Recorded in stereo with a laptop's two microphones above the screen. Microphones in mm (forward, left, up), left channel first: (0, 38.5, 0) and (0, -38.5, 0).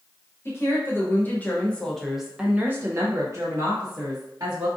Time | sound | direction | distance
0.5 | a woman speaking | 35° left (ahead or behind) | 1.1 m